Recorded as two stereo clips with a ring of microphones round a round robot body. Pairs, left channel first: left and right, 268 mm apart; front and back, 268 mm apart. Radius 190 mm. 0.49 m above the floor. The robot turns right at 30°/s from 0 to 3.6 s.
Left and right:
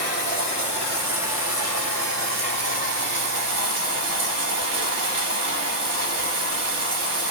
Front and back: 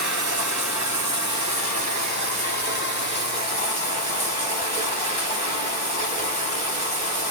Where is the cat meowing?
I don't hear a cat meowing.